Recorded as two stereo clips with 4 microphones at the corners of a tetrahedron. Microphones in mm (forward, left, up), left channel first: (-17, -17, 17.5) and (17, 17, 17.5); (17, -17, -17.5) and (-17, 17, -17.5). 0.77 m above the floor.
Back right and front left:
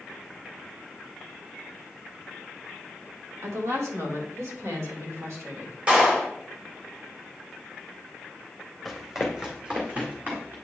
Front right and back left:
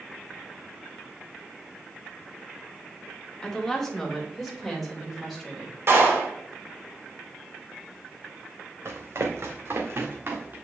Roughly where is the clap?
Left.